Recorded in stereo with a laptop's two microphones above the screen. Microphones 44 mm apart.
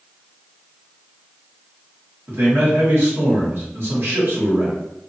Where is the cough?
I don't hear a cough.